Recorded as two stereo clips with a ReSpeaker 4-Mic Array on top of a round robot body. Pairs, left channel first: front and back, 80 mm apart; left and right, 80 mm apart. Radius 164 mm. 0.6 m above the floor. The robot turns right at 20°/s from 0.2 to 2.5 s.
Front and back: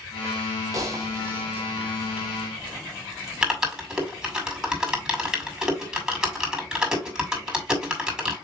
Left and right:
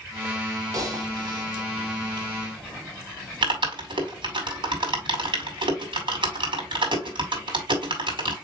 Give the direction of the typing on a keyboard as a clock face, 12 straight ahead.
5 o'clock.